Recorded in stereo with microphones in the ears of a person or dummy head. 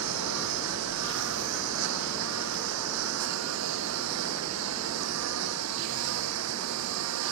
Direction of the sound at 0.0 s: 85° right.